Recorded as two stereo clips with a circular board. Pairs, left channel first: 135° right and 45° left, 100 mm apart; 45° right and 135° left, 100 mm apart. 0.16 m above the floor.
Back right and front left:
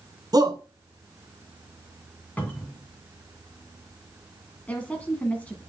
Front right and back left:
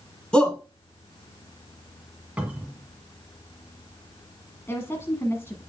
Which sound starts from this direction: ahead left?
A shout, at 0.3 s.